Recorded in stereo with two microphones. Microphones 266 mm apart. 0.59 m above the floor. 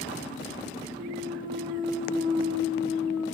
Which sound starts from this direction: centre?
A clunk, at 0.9 s.